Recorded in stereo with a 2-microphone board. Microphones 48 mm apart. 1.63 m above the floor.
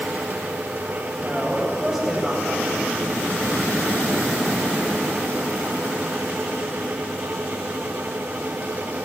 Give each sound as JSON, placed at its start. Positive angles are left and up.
{"t": 1.2, "sound": "a woman speaking", "side_deg": -5, "distance_m": 9.0}